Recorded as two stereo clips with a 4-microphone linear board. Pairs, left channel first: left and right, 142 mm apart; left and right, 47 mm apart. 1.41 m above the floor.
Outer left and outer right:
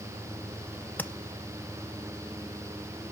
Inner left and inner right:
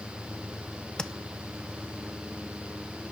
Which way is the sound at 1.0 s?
10° left (ahead or behind).